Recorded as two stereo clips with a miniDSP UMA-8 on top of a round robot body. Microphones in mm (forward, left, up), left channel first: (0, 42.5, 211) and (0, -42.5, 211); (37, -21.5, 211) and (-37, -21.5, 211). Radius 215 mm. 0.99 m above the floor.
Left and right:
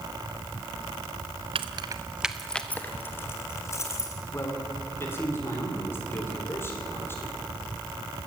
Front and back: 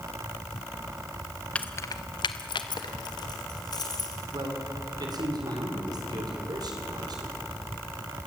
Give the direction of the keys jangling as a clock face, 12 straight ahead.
2 o'clock.